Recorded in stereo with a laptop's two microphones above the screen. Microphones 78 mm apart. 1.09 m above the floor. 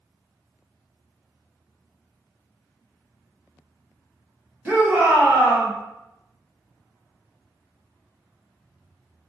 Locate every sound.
4.7 s a shout: 25° right (ahead or behind), 0.8 m